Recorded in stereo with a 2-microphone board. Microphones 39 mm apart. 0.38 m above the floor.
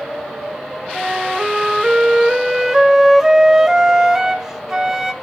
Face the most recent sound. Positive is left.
turn(degrees=-10)  # may be behind; listen again after turning